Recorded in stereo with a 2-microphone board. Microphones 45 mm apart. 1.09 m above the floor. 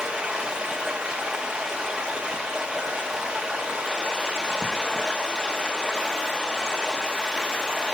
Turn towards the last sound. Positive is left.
turn(degrees=-15)  # may be behind; listen again after turning